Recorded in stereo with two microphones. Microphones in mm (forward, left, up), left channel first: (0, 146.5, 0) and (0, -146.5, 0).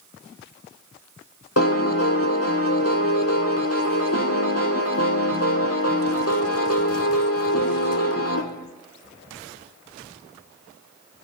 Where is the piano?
50° left (ahead or behind), 1.3 m.